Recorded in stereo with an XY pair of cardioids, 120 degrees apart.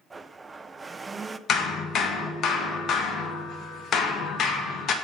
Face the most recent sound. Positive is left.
turn(degrees=55)